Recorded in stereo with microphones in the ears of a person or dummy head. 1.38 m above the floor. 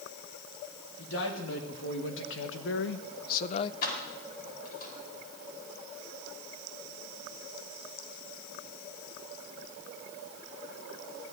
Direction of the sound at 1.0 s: 70° left (ahead or behind).